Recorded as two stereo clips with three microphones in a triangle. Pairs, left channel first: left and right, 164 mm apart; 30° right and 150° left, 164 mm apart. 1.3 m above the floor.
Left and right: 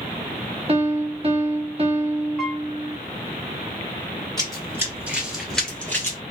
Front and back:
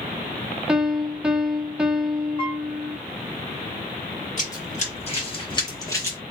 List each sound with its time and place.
0.7 s a piano: 130° right, 0.6 m
2.4 s a piano: straight ahead, 1.3 m
4.4 s running footsteps: 25° right, 1.9 m; by 6.2 s 35° left, 1.5 m